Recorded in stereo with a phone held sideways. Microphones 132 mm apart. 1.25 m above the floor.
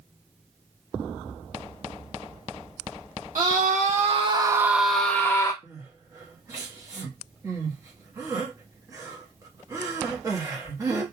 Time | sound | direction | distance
3.4 | a scream | 80° right | 0.9 m
5.6 | crying | 25° right (ahead or behind) | 0.9 m